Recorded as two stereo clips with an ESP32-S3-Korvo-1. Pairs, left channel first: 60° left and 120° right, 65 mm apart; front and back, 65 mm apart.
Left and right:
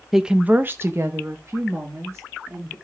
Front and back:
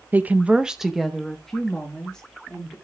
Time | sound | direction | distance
0.1 | a woman speaking | 155° left | 0.6 m